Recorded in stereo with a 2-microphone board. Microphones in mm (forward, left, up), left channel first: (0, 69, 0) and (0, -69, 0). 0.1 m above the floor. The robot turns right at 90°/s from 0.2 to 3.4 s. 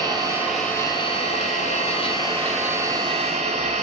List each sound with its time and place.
0.0 s an engine running: 35° right, 1.0 m; by 3.8 s 105° right, 1.0 m